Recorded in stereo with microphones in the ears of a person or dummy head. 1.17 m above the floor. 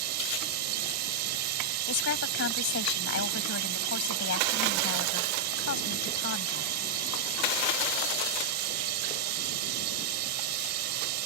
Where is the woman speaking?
65° left (ahead or behind).